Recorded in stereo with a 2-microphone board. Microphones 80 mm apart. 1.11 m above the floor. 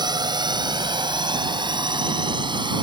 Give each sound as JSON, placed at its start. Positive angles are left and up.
{"t": 0.0, "sound": "a drone", "side_deg": -65}